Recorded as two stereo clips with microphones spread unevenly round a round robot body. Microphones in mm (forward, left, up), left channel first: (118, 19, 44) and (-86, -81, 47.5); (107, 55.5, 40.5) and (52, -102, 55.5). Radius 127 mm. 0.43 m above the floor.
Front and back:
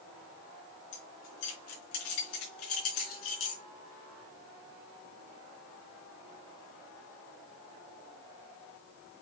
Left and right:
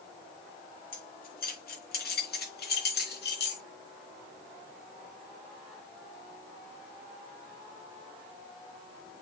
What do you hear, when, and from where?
0.9 s keys jangling: 40° left, 4 m; by 3.6 s 65° left, 3.5 m